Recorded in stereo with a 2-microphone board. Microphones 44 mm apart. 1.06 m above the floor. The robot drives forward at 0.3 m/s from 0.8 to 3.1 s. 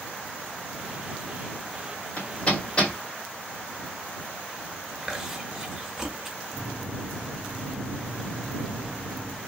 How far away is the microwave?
About 0.6 m.